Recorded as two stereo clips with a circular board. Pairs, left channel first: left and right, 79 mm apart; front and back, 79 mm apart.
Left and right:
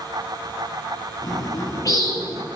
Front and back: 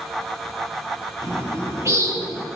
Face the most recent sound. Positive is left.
turn(degrees=130)